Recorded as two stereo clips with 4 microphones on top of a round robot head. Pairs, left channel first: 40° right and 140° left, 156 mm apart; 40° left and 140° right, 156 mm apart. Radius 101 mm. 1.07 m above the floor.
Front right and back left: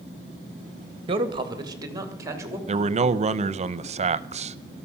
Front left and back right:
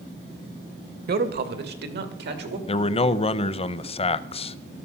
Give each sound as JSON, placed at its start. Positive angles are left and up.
{"t": 1.1, "sound": "a man speaking", "azimuth_deg": -160, "distance_m": 1.7}
{"t": 2.7, "sound": "a man speaking", "azimuth_deg": 90, "distance_m": 0.7}